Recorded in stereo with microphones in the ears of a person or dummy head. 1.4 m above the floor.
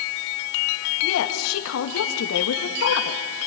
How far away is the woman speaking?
About 2.5 m.